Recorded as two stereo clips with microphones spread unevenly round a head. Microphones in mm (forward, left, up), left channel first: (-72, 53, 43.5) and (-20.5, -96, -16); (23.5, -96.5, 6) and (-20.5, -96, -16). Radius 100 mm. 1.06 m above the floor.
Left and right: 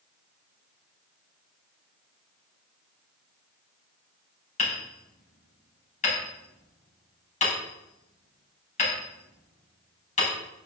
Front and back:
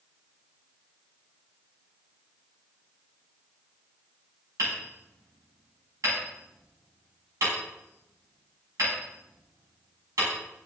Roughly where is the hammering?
Behind left.